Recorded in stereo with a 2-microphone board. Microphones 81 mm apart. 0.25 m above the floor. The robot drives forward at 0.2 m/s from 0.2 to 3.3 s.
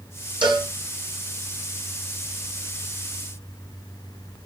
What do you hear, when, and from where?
0.4 s a cowbell: 85° right, 2.5 m